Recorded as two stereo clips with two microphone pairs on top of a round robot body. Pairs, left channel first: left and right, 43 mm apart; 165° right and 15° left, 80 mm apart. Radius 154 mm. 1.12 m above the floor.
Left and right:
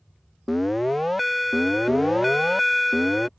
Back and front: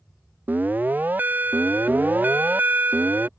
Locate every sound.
0.5 s an alarm: 25° left